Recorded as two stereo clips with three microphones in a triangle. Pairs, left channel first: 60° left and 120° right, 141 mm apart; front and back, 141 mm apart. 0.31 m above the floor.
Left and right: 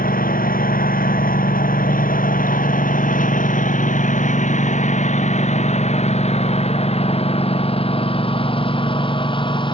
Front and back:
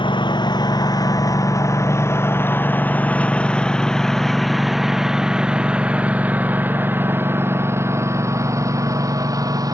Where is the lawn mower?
55° left; by 9.7 s 115° left.